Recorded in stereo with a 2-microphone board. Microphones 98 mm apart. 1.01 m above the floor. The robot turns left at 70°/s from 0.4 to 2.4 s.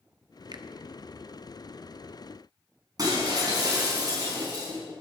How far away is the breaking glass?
About 5 m.